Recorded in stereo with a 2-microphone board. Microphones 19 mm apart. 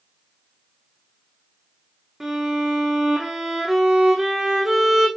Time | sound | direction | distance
2.2 | a violin | 20° right (ahead or behind) | 3.5 m